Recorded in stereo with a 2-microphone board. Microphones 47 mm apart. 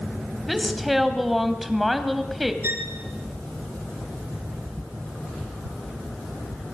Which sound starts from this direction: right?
A violin, at 2.6 s.